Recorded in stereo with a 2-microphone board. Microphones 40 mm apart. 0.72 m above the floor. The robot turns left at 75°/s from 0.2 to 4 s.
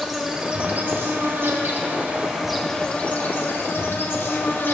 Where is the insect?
5° right, 1.1 m; by 4.7 s 70° left, 1.1 m.